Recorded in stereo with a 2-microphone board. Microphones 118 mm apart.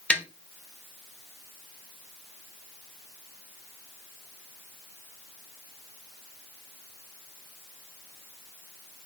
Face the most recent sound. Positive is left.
turn(degrees=10)  # may be behind; listen again after turning